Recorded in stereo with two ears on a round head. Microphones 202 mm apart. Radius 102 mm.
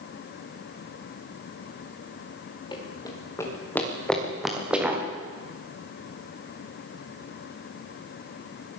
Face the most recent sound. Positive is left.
turn(degrees=-10)  # may be behind; listen again after turning